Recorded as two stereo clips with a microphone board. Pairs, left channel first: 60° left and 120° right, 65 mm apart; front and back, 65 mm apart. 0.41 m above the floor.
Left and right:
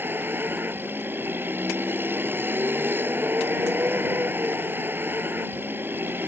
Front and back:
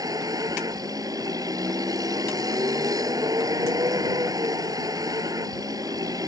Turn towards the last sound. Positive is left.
turn(degrees=-175)